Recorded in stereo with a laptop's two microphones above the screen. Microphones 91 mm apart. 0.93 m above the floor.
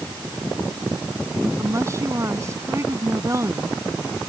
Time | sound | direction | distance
1.6 | a woman speaking | 35° right (ahead or behind) | ?